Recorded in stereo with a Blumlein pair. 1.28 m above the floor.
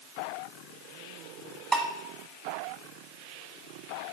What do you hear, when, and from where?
1.7 s dishes clattering: 20° right, 1.6 m